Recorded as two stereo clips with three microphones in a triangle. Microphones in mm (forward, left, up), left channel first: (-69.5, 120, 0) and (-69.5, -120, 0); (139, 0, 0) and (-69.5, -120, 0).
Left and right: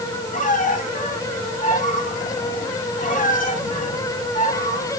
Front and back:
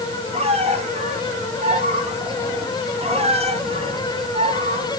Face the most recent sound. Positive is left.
turn(degrees=145)